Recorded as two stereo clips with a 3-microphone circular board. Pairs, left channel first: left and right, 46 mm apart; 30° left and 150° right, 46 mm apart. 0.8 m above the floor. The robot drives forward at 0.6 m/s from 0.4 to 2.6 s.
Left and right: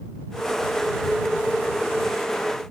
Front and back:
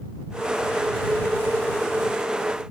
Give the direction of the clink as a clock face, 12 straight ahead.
I don't hear a clink.